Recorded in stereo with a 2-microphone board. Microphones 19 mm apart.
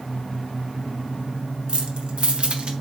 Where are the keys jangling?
45° right (ahead or behind), 1.3 m; by 2.7 s 50° right (ahead or behind), 1.1 m.